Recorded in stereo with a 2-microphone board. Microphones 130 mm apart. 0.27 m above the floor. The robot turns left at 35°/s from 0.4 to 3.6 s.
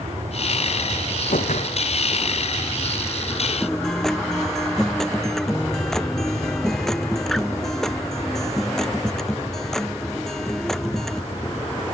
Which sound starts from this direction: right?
An aircraft, at 0.0 s.